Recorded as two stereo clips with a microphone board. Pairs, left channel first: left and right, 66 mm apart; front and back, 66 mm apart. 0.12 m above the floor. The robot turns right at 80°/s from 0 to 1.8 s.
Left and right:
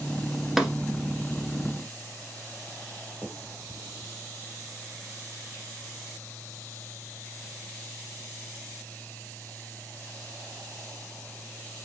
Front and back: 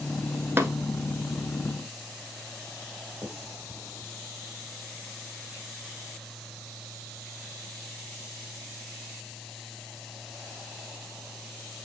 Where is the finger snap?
135° left, 2.5 m.